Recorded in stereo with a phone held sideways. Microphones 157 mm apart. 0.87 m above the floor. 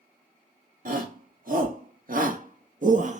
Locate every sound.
0.8 s a shout: 60° right (ahead or behind), 2.5 m; by 3.2 s 50° right (ahead or behind), 1.5 m